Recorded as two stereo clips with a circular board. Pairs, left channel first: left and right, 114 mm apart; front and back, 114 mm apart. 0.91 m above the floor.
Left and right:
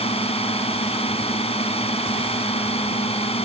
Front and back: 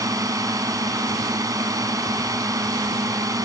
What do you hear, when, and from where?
0.0 s a drone: 120° left